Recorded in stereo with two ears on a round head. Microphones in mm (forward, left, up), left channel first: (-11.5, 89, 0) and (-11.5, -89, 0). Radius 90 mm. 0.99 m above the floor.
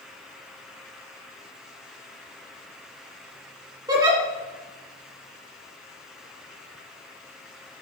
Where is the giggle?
20° right (ahead or behind), 2 m.